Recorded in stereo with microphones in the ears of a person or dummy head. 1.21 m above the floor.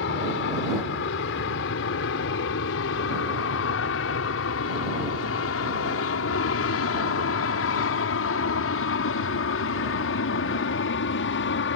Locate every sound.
0.0 s an aircraft: 65° left (ahead or behind); by 11.8 s 60° left (ahead or behind)